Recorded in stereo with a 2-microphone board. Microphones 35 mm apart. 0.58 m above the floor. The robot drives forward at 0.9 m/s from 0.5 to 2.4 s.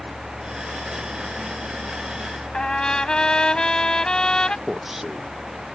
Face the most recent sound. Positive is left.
turn(degrees=-5)  # may be behind; listen again after turning